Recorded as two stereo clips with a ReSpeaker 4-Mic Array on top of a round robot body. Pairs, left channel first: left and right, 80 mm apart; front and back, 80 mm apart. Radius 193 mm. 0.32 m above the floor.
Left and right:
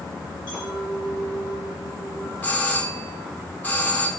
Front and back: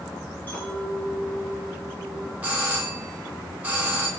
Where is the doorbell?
130° left, 1.8 m.